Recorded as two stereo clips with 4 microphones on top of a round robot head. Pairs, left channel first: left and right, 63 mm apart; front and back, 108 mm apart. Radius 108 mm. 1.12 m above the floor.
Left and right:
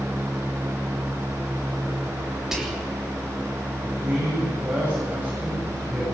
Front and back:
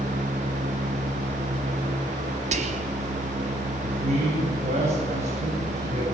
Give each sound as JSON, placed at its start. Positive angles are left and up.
{"t": 2.5, "sound": "whispering", "azimuth_deg": -175, "distance_m": 3.0}
{"t": 3.8, "sound": "a man speaking", "azimuth_deg": -160, "distance_m": 8.0}